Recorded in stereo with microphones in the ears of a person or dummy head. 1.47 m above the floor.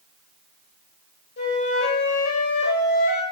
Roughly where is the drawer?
No drawer in this recording.